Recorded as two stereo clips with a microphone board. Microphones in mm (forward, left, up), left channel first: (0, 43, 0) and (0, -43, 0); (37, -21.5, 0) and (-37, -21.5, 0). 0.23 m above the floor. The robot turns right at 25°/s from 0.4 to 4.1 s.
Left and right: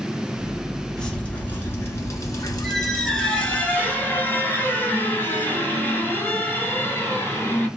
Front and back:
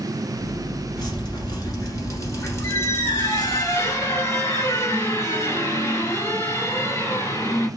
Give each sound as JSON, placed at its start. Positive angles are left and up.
{"t": 1.0, "sound": "dripping", "azimuth_deg": 10, "distance_m": 1.3}
{"t": 2.6, "sound": "a squeak", "azimuth_deg": 0, "distance_m": 1.3}